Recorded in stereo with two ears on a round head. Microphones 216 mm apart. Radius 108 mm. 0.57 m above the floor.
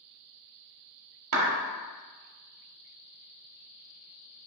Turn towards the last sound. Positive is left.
turn(degrees=-60)  # may be behind; listen again after turning